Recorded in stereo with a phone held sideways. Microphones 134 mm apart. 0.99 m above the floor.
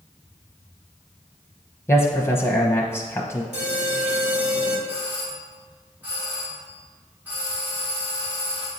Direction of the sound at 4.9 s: 10° right (ahead or behind).